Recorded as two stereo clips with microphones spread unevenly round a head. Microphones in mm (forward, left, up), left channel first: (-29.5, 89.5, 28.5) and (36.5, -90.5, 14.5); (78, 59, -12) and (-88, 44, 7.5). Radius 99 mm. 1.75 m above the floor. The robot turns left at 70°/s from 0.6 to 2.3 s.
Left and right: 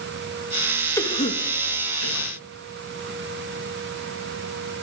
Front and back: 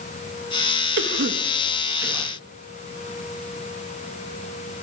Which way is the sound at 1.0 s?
175° right.